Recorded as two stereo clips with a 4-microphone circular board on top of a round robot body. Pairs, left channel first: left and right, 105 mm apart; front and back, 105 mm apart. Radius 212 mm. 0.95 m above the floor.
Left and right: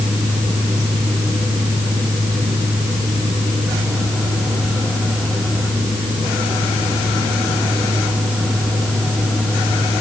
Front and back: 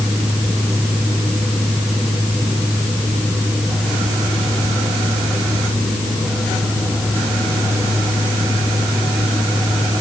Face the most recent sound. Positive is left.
No sound to turn to.